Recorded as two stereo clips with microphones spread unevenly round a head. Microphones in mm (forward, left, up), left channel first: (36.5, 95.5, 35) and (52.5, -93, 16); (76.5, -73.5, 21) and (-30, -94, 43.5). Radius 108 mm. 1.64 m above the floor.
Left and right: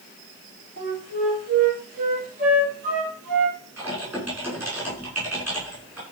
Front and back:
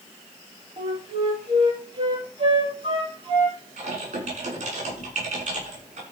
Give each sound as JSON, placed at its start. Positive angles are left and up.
{"t": 0.8, "sound": "a flute", "azimuth_deg": -135, "distance_m": 6.0}
{"t": 3.8, "sound": "typing on a keyboard", "azimuth_deg": -165, "distance_m": 6.5}